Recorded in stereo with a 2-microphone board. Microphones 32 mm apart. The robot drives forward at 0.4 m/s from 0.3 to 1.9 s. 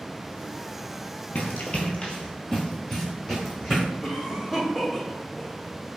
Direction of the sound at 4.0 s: 10° right (ahead or behind).